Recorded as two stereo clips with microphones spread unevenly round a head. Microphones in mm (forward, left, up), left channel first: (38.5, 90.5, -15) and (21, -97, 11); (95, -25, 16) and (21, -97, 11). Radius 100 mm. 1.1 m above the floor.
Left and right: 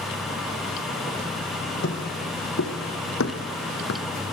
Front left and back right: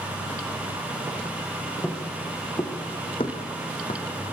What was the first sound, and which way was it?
Footsteps, 120° left.